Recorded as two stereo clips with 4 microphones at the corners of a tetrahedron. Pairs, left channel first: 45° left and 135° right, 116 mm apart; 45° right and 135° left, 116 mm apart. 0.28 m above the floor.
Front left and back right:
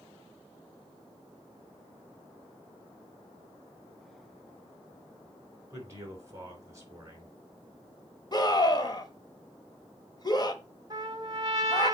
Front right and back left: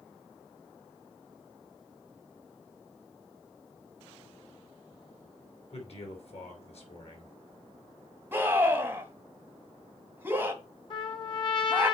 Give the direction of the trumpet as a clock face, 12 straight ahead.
3 o'clock.